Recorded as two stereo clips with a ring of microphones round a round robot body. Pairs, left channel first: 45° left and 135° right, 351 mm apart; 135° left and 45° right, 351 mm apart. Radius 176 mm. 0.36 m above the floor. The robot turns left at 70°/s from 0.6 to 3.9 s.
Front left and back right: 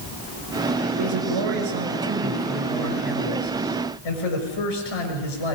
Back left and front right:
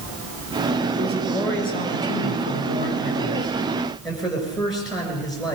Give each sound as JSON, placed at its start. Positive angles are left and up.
{"t": 1.0, "sound": "a man speaking", "azimuth_deg": -110, "distance_m": 6.5}